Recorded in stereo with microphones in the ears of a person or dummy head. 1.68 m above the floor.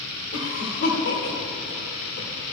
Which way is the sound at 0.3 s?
80° left.